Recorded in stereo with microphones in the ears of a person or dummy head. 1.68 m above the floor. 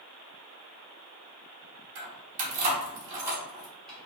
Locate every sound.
1.9 s keys jangling: 50° right (ahead or behind), 1.2 m; by 4.1 s 10° left (ahead or behind), 1.3 m